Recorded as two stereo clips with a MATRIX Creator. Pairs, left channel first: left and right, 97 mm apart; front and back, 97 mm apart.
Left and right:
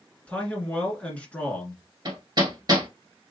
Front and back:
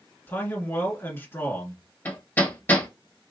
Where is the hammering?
65° right, 1.4 m.